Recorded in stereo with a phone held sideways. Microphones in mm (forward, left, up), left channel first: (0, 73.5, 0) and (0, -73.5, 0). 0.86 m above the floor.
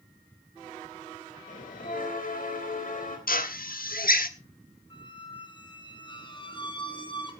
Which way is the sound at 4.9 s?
35° left (ahead or behind).